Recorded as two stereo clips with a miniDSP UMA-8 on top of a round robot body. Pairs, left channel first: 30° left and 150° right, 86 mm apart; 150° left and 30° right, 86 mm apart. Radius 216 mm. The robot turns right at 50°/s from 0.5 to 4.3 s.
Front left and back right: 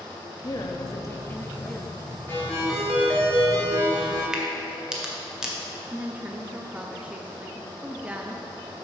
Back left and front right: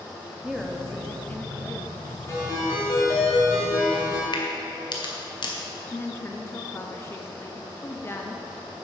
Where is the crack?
125° left, 1.4 m.